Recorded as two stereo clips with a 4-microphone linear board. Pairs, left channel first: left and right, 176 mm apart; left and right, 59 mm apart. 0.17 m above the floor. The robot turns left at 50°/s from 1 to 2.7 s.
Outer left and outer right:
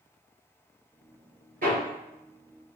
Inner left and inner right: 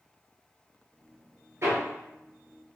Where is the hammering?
55° right (ahead or behind), 1.7 m; by 1.8 s 60° right (ahead or behind), 1.7 m.